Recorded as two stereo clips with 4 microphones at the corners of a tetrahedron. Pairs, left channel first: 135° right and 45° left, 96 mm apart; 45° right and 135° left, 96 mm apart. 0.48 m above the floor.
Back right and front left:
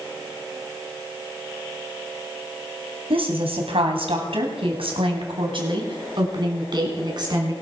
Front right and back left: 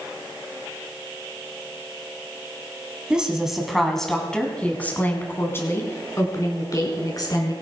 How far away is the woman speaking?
About 3.5 m.